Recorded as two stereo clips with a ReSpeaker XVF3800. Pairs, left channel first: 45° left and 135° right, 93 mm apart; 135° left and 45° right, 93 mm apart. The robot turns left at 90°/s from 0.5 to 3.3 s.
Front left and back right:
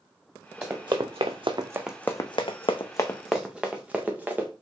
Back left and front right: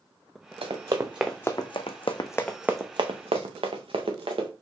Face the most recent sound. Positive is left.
turn(degrees=-65)